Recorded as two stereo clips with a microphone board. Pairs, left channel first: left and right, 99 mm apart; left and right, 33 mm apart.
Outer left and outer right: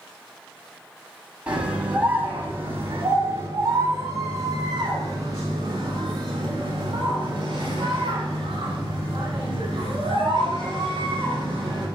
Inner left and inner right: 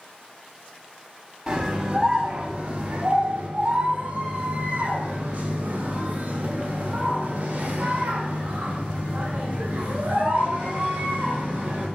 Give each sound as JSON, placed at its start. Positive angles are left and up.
{"t": 1.5, "sound": "a scream", "side_deg": -15, "distance_m": 4.0}